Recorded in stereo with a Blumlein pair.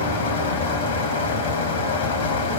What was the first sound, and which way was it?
A fan, 65° left.